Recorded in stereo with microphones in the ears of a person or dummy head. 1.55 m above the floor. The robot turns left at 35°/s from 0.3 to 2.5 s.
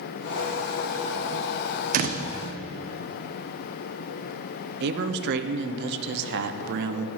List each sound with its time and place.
1.9 s a door slam: 55° right (ahead or behind), 0.6 m; by 2.2 s 45° right (ahead or behind), 0.6 m
4.8 s a man speaking: 50° right (ahead or behind), 0.7 m